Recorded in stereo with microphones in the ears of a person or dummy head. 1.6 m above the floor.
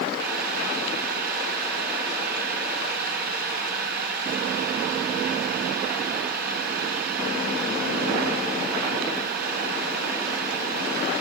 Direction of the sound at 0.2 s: 55° right (ahead or behind).